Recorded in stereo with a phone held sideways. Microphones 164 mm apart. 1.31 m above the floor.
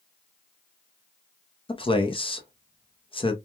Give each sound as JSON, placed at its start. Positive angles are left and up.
{"t": 1.7, "sound": "a man speaking", "side_deg": 35, "distance_m": 0.6}